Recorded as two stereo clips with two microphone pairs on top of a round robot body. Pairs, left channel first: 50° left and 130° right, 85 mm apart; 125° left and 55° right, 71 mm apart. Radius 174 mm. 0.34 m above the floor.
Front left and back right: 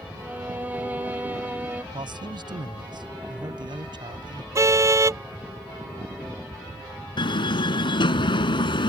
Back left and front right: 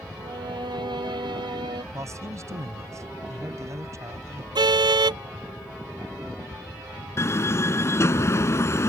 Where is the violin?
60° right.